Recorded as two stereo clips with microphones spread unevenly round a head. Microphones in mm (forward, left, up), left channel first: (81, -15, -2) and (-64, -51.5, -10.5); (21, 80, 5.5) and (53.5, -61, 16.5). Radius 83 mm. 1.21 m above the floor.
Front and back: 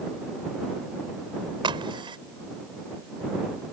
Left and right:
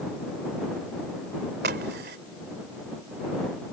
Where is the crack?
110° right.